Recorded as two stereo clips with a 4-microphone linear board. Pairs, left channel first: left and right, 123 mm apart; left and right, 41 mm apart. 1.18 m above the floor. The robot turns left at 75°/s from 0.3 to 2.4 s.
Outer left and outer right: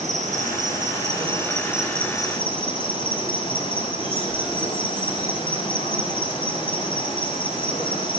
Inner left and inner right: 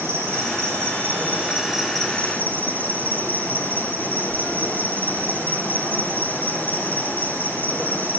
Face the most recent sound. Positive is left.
turn(degrees=140)